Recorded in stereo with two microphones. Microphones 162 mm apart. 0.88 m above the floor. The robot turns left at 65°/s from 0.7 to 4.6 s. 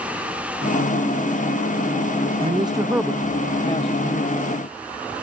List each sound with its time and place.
2.4 s a man speaking: 130° right; by 4.4 s 100° left